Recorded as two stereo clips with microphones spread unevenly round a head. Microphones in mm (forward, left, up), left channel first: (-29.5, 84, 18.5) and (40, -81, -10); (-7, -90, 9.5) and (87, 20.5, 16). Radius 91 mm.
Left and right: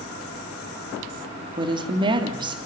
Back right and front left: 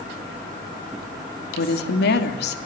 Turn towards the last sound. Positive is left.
turn(degrees=-135)